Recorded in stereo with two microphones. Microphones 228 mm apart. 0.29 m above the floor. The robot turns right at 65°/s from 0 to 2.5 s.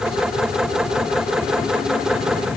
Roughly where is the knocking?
No knocking in this recording.